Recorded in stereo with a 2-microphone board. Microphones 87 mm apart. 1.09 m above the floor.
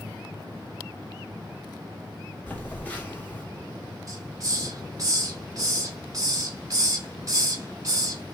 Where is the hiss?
40° right (ahead or behind), 1.1 m.